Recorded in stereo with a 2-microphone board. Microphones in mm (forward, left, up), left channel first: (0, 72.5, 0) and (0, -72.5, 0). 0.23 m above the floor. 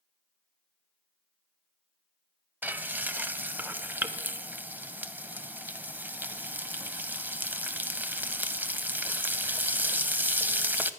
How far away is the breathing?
No breathing in this recording.